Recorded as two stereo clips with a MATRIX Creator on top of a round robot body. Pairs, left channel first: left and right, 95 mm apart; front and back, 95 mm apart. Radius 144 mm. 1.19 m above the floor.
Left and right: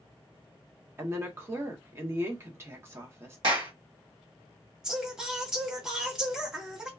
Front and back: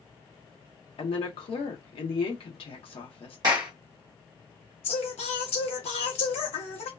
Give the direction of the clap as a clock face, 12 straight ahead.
4 o'clock.